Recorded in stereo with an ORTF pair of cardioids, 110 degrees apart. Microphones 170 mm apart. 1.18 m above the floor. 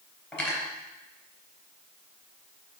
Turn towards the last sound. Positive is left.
turn(degrees=10)